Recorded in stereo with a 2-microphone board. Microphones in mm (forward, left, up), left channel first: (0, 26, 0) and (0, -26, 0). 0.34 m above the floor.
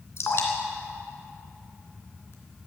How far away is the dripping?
About 2.5 m.